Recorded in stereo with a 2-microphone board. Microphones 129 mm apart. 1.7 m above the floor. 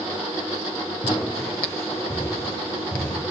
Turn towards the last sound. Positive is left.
turn(degrees=10)  # may be behind; listen again after turning